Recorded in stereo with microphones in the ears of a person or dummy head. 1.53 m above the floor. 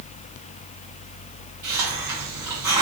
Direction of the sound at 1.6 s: 15° right (ahead or behind).